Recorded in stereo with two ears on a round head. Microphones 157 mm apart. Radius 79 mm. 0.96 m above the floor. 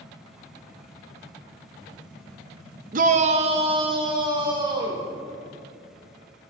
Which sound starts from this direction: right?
A shout, at 2.9 s.